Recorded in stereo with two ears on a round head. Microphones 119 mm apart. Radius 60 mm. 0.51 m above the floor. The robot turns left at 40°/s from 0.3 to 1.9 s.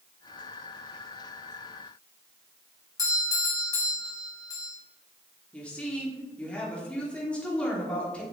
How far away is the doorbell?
About 1.7 m.